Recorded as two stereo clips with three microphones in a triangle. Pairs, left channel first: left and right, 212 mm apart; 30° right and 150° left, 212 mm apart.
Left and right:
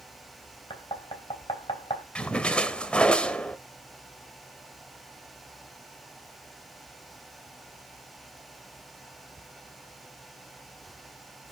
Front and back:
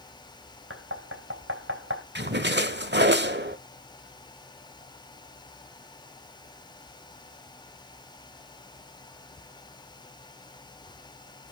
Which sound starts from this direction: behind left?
Knocking, at 0.7 s.